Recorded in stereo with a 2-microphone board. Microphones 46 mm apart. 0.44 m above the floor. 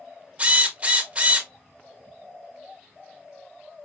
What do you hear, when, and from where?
0.4 s a drill: 25° right (ahead or behind), 1.3 m